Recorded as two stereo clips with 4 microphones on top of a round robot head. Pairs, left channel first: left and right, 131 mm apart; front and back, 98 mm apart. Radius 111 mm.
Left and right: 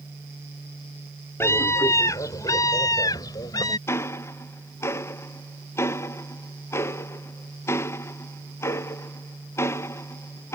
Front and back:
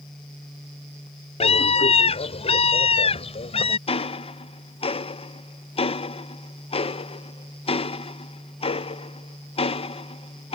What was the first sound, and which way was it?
A scream, 15° left.